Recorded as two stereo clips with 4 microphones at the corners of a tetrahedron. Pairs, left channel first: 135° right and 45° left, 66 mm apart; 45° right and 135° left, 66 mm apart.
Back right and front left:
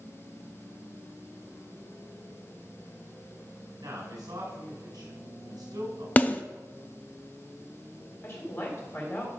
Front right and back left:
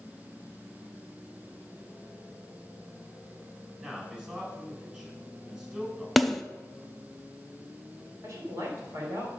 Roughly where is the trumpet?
No trumpet in this recording.